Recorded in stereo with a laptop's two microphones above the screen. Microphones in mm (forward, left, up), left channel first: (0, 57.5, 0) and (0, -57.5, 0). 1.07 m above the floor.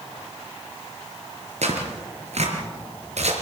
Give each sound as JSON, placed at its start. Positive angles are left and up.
{"t": 1.6, "sound": "tearing paper", "side_deg": -70, "distance_m": 4.5}